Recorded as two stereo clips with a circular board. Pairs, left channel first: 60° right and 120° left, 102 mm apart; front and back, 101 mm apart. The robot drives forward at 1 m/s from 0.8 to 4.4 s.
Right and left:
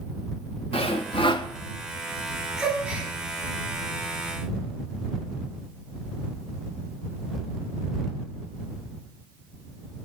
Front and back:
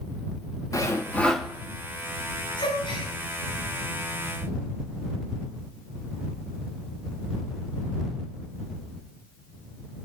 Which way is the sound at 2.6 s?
35° left.